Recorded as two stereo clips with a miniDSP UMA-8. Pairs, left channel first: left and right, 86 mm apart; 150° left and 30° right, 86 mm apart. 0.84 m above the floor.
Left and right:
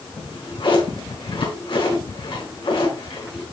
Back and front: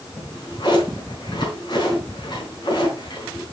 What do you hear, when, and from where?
0.2 s a drawer: 110° left, 5 m